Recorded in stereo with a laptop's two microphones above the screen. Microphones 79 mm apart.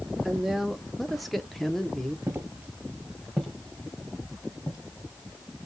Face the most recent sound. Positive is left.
turn(degrees=35)  # may be behind; listen again after turning